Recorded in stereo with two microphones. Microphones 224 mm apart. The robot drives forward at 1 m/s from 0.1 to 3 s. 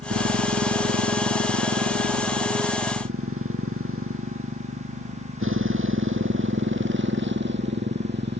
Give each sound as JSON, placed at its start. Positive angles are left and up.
{"t": 0.0, "sound": "a motorcycle", "side_deg": -90}